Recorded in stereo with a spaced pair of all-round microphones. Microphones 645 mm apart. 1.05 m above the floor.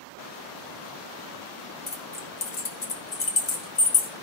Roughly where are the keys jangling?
Left.